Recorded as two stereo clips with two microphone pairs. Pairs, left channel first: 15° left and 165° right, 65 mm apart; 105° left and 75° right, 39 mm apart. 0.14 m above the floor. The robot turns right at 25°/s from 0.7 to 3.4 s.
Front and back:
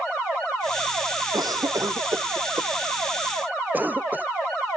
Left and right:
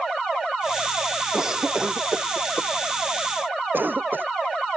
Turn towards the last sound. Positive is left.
turn(degrees=-100)